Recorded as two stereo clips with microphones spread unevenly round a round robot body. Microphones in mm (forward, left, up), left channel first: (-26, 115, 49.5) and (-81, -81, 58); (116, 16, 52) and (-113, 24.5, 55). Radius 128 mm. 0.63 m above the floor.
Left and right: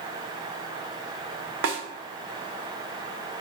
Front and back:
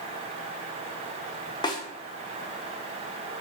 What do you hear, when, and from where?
1.6 s a snare drum: 75° right, 0.6 m